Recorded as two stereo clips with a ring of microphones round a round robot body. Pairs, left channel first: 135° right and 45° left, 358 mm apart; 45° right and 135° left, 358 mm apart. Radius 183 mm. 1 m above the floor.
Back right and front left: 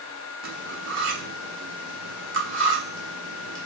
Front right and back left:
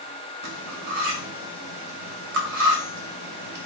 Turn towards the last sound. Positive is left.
turn(degrees=95)